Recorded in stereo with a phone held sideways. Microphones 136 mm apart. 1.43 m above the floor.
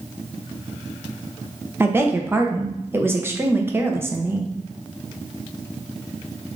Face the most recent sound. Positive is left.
turn(degrees=-15)  # may be behind; listen again after turning